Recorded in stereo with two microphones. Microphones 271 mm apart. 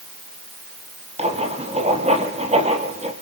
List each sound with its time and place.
1.2 s writing: 25° right (ahead or behind), 4 m